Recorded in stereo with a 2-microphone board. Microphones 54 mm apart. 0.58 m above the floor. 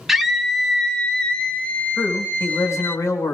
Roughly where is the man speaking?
Left.